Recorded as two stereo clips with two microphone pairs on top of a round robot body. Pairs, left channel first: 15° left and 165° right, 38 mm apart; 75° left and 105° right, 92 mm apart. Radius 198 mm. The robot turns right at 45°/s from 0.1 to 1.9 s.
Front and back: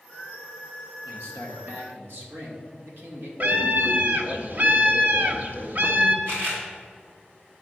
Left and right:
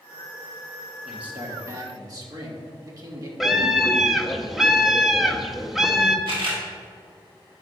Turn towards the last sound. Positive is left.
turn(degrees=-130)